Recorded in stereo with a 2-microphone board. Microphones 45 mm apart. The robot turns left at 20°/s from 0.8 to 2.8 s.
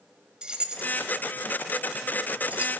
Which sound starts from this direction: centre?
Keys jangling, at 0.4 s.